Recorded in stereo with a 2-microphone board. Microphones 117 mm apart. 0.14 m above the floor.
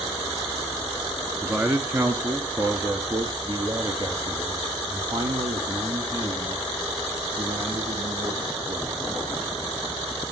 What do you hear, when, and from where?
1.4 s a man speaking: 15° right (ahead or behind), 1.6 m; by 9.4 s 40° right (ahead or behind), 6.5 m